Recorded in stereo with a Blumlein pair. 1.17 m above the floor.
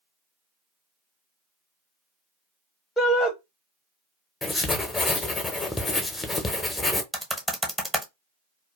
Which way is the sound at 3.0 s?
10° left.